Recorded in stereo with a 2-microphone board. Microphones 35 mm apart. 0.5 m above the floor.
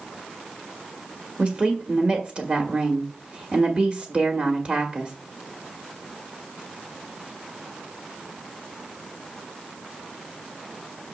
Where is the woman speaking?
40° right (ahead or behind), 1.4 m.